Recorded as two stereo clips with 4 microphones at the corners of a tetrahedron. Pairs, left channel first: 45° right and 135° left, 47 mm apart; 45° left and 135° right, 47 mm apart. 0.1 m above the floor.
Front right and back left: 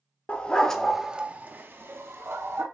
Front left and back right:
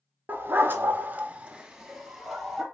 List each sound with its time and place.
0.3 s a dog barking: 95° right, 0.7 m; by 2.6 s 135° left, 1.1 m